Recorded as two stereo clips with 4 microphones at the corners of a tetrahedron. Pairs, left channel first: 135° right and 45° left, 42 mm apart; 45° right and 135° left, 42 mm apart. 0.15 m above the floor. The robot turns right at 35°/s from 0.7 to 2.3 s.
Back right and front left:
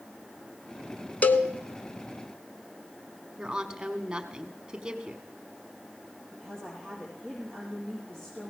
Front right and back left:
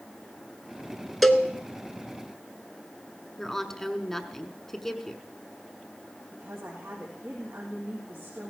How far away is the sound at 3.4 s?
About 1.0 m.